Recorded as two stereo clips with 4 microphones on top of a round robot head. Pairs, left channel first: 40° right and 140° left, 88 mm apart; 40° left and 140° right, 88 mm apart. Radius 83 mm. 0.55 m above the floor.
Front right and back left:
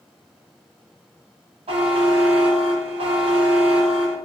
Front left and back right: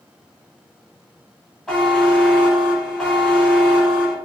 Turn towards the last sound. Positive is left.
turn(degrees=125)